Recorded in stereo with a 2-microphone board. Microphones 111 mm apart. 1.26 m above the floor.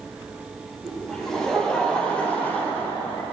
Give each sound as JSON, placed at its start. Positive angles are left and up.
{"t": 0.8, "sound": "laughter", "side_deg": 0, "distance_m": 4.5}